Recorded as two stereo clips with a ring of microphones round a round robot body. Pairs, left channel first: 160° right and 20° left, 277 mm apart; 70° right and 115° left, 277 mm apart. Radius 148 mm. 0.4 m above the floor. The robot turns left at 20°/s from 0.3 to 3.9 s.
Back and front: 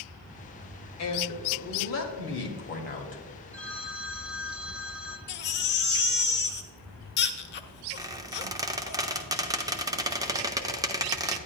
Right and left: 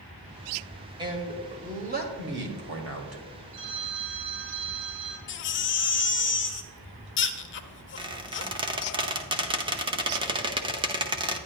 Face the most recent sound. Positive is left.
turn(degrees=75)